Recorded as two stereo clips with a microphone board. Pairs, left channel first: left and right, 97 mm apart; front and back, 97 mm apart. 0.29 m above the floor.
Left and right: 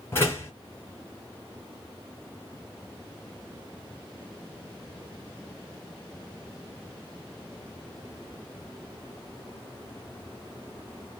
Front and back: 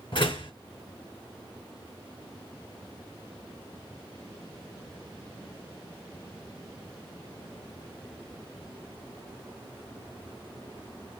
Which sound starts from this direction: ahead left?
A door slam, at 0.1 s.